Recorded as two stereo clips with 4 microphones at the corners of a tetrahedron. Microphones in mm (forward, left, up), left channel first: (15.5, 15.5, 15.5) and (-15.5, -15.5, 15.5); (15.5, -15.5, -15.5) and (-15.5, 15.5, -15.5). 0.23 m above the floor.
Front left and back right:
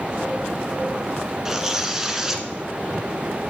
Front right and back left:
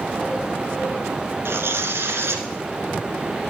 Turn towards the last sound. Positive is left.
turn(degrees=145)